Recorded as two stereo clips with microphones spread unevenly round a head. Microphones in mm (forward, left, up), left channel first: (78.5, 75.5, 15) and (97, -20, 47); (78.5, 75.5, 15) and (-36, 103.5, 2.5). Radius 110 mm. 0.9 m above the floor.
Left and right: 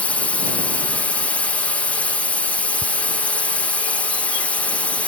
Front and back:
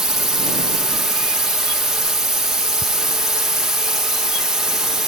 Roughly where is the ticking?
Right.